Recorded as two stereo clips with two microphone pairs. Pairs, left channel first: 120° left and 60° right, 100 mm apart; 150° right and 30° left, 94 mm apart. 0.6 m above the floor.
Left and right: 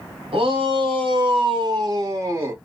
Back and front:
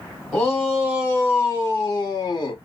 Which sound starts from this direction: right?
A shout, at 0.3 s.